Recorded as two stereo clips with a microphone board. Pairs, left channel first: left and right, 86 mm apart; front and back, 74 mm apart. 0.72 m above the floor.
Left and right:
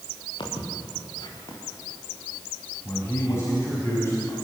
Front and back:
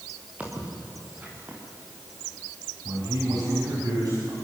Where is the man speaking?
150° left, 5.5 m.